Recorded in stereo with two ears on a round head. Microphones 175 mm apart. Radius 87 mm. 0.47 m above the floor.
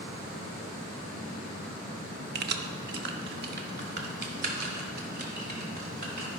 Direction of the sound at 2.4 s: 50° right (ahead or behind).